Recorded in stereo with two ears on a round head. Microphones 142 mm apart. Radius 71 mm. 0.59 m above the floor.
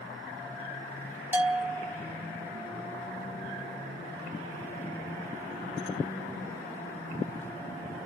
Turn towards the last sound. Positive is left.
turn(degrees=-10)  # may be behind; listen again after turning